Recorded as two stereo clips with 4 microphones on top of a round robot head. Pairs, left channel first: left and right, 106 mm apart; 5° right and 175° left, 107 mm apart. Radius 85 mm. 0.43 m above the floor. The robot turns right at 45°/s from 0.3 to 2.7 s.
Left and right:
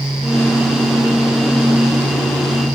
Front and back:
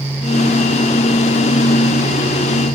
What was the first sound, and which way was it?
Only background noise.